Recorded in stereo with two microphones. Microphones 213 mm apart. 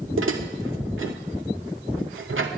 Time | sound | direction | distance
0.2 | dishes clattering | 70° right (ahead or behind) | 2.0 m